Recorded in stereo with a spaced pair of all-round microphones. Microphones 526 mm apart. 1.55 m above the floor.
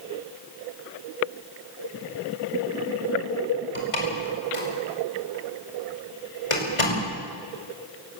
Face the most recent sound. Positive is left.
turn(degrees=75)  # may be behind; listen again after turning